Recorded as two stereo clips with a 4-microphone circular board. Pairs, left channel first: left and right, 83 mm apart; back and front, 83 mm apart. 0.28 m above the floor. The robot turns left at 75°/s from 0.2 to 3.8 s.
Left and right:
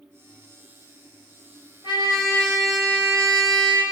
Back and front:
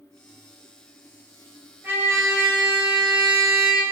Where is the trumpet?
70° left, 1.1 m; by 3.8 s 80° right, 1.1 m.